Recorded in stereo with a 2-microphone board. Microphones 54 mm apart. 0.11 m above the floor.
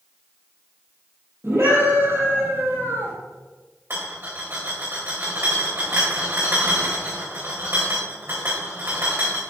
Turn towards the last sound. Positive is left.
turn(degrees=-50)  # may be behind; listen again after turning